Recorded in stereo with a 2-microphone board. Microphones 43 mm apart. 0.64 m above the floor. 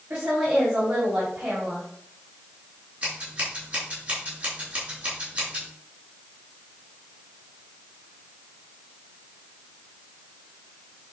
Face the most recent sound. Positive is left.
turn(degrees=-30)  # may be behind; listen again after turning